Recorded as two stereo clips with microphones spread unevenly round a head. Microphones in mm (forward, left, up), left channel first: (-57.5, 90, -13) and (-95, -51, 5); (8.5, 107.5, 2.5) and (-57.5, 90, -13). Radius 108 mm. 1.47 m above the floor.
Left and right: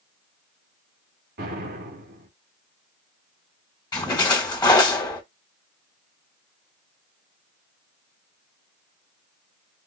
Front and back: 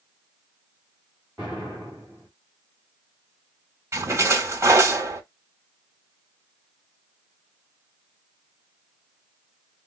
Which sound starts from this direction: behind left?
A splash, at 3.9 s.